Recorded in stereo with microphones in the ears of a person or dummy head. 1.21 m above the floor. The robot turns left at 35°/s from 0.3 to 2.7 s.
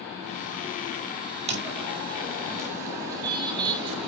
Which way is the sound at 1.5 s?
20° right (ahead or behind).